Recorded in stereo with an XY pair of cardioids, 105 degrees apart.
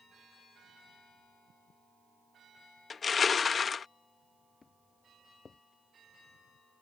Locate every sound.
2.9 s crushing: 40° left
4.6 s footsteps: 35° left